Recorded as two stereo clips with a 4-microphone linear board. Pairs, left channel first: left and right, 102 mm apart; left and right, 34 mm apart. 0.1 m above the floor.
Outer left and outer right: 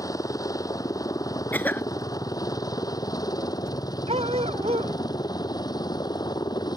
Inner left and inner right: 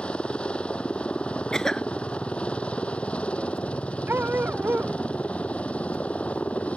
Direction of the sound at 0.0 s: 35° left (ahead or behind).